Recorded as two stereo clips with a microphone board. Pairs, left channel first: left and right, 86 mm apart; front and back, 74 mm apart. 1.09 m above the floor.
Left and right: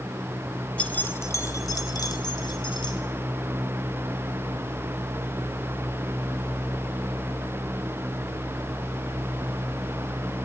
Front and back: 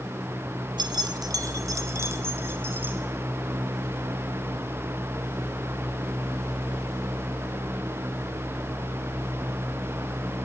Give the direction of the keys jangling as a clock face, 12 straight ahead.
6 o'clock.